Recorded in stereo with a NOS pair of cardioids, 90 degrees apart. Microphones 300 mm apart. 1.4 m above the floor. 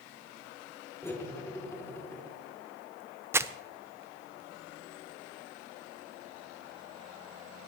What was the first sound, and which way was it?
Cutlery clinking, 10° left.